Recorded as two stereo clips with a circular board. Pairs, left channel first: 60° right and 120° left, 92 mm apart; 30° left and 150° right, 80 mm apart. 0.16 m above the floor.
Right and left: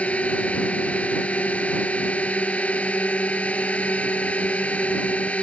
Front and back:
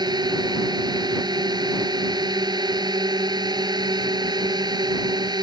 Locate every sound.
0.0 s a drone: 135° right